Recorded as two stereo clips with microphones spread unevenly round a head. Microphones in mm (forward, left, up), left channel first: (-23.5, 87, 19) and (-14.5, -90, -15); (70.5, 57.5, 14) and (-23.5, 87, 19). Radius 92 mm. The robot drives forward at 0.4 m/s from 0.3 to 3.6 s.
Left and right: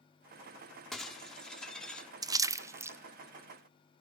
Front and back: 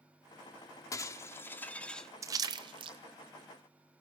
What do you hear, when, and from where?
0.9 s breaking glass: 20° left, 1.0 m; by 2.1 s 70° left, 0.8 m
2.2 s a splash: 140° right, 0.5 m; by 3.0 s 155° right, 0.7 m